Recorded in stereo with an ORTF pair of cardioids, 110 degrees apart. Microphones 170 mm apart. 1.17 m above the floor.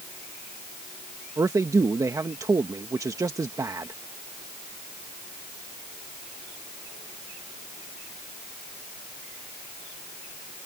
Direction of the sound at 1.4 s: 20° right.